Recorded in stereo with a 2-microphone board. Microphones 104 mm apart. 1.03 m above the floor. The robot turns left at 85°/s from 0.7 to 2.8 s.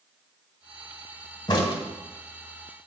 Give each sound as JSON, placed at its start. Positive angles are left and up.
{"t": 1.5, "sound": "a crack", "side_deg": 40, "distance_m": 1.2}